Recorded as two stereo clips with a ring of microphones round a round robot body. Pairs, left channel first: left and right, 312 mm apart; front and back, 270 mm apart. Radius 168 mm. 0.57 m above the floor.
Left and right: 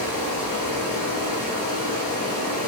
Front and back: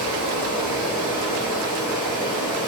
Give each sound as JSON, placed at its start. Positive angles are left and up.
{"t": 0.0, "sound": "running water", "azimuth_deg": -75, "distance_m": 1.2}